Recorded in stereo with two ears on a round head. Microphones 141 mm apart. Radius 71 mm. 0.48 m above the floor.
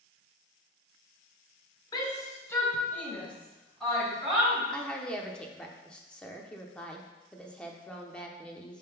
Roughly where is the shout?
Left.